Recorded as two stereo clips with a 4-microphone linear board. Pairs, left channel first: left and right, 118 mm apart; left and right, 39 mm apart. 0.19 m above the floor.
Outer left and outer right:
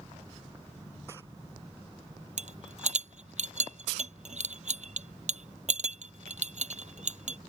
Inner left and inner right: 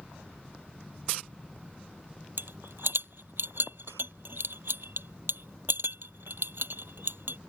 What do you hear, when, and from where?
2.4 s a rattle: 70° right (ahead or behind)